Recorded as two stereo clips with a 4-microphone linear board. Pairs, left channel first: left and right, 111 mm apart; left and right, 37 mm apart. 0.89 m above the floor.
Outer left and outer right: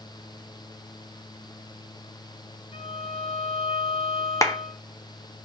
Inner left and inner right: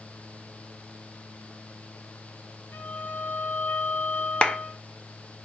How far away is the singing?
No singing in this recording.